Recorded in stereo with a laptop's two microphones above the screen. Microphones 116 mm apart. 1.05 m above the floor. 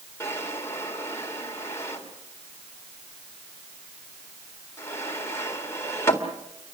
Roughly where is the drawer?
Left.